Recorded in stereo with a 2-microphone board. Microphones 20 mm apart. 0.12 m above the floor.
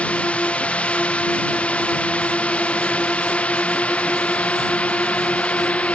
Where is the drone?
70° left (ahead or behind); by 6.0 s 75° left (ahead or behind).